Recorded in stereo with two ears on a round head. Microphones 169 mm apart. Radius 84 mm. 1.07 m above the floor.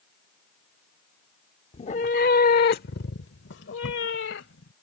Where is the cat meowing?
30° left (ahead or behind); by 4.7 s 70° left (ahead or behind).